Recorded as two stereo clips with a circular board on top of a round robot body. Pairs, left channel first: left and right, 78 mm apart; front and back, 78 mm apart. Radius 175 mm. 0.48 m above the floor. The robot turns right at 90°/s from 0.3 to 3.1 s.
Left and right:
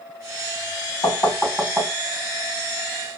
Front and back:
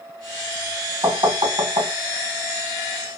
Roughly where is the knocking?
Behind left.